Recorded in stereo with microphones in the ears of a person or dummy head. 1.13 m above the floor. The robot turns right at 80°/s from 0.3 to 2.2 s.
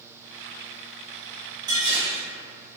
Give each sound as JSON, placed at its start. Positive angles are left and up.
{"t": 1.7, "sound": "dishes clattering", "azimuth_deg": -155, "distance_m": 1.0}